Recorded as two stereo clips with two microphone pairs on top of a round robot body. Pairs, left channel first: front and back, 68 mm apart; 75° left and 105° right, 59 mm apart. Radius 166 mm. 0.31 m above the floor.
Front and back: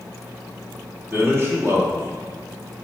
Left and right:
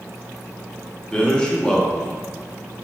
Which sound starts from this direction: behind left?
A man speaking, at 1.1 s.